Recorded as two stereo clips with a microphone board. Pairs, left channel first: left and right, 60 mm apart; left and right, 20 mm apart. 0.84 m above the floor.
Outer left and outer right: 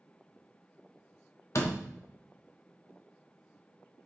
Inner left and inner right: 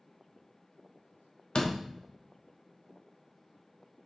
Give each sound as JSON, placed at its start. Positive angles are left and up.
{"t": 1.6, "sound": "a door slam", "side_deg": 55, "distance_m": 1.3}